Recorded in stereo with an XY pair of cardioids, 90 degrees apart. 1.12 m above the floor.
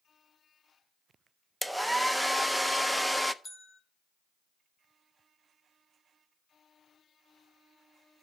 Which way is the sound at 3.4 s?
40° left.